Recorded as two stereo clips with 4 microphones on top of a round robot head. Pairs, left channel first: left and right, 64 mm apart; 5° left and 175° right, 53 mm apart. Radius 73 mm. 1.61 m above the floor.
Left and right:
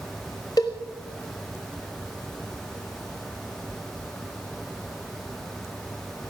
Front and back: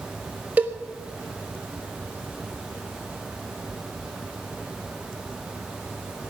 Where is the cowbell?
140° left, 1.1 m.